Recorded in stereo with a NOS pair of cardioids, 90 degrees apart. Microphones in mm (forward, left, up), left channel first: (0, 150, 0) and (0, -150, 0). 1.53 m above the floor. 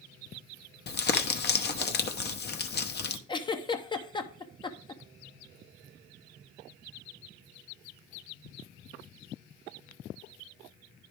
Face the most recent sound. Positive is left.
turn(degrees=15)